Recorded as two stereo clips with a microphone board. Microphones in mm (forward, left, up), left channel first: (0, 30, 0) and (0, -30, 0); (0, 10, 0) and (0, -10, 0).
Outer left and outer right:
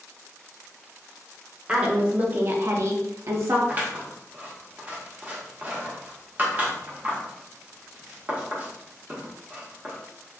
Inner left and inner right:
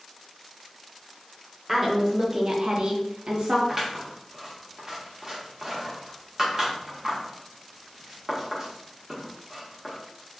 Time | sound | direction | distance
1.7 | a woman speaking | 20° right (ahead or behind) | 1.1 m
3.7 | scissors | 30° right (ahead or behind) | 1.0 m